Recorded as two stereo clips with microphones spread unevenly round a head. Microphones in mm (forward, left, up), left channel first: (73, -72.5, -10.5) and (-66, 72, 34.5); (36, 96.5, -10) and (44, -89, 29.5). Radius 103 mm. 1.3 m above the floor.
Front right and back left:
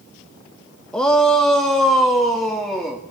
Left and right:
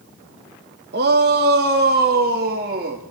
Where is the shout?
130° right, 1.5 m; by 3.0 s 135° right, 3 m.